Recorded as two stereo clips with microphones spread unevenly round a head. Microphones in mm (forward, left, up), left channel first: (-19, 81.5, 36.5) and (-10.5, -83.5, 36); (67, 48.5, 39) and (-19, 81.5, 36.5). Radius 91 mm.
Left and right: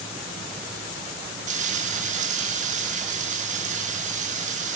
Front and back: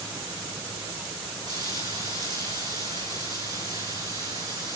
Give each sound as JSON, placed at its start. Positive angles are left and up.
{"t": 1.5, "sound": "frying", "azimuth_deg": -130, "distance_m": 5.5}